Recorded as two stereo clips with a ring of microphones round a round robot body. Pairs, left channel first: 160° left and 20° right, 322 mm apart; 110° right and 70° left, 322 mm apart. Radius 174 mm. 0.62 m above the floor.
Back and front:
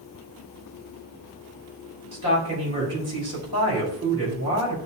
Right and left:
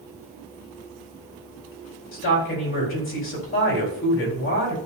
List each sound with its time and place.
2.1 s a woman speaking: 60° right, 4.5 m